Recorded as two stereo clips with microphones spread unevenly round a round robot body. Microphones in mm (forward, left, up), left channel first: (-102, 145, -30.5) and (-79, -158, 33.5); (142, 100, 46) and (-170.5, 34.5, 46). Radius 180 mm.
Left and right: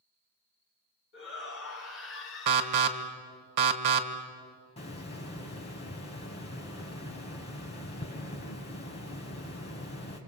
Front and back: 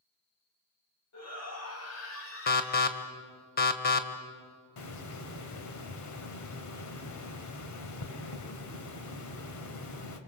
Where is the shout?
45° left, 3.5 m; by 3.1 s 60° left, 2.5 m.